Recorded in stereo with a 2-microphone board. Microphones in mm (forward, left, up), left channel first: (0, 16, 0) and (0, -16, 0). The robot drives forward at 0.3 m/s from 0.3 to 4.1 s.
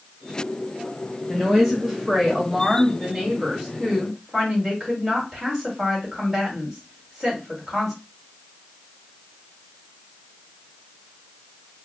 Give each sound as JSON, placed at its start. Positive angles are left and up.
{"t": 1.3, "sound": "a woman speaking", "side_deg": -10, "distance_m": 1.2}